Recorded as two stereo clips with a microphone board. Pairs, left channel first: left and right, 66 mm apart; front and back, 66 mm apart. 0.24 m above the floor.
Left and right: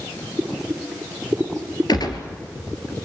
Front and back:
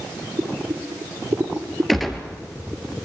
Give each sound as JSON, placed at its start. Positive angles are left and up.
{"t": 0.4, "sound": "boiling", "azimuth_deg": -155, "distance_m": 3.0}
{"t": 1.9, "sound": "a gunshot", "azimuth_deg": 90, "distance_m": 2.5}